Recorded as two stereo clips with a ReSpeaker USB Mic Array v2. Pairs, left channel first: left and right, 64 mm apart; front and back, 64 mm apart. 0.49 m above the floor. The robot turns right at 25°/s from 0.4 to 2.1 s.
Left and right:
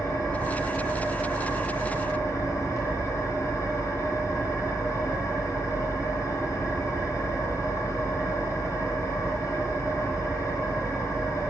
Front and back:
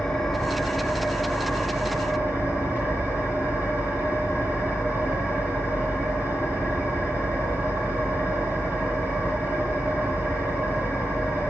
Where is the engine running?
75° left, 3 m; by 11.5 s 115° left, 3 m.